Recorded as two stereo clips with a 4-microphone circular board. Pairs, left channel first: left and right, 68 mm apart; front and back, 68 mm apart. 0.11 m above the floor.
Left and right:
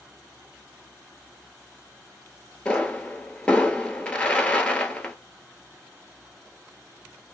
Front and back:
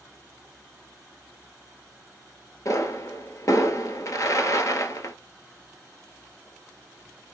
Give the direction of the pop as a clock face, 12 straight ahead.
11 o'clock.